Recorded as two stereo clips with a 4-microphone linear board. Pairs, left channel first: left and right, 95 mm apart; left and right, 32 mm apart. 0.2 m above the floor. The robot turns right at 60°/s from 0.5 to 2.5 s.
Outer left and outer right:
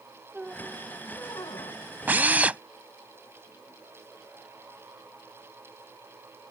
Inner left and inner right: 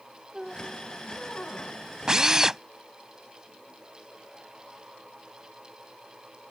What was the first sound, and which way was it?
A squeak, 10° right.